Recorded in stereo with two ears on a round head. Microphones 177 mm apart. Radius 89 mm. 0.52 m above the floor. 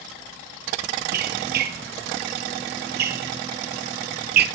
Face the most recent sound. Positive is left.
turn(degrees=-55)  # may be behind; listen again after turning